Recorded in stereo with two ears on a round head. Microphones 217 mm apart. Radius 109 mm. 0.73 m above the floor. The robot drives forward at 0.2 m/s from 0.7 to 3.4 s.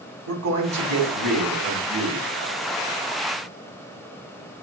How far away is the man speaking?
About 2 m.